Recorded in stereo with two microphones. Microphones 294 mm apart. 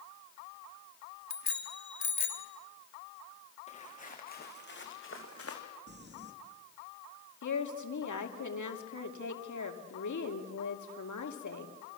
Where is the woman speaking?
80° left, 2.5 m.